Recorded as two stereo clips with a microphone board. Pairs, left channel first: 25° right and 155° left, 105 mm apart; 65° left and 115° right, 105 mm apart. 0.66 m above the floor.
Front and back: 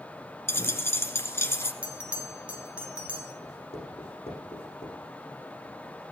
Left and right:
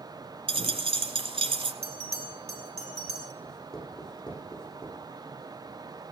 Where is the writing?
15° right, 8.5 m.